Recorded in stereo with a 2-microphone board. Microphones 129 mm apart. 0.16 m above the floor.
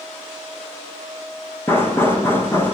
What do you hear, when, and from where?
1.7 s knocking: 20° left (ahead or behind), 6 m